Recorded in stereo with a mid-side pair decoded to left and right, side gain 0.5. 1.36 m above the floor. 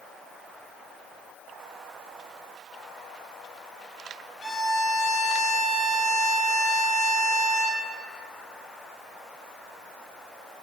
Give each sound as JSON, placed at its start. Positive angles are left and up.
{"t": 4.4, "sound": "a violin", "azimuth_deg": 45, "distance_m": 5.5}